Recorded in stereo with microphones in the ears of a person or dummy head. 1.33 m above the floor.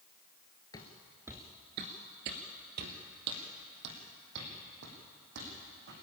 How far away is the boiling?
I don't hear boiling.